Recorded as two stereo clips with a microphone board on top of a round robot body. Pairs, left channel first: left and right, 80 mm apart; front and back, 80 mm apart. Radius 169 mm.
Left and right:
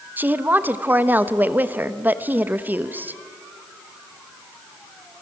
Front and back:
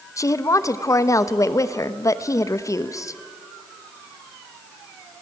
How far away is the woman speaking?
About 1.3 m.